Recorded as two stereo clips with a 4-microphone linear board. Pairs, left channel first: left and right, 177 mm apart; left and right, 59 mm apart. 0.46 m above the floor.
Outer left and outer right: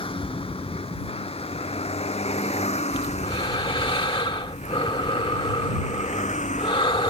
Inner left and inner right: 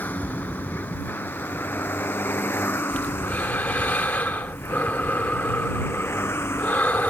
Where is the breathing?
30° left (ahead or behind).